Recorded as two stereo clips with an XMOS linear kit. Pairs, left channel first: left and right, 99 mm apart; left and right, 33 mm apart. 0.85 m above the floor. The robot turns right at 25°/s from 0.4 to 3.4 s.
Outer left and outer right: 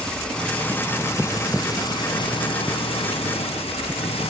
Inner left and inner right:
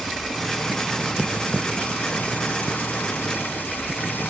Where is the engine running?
10° left; by 4.3 s 85° left.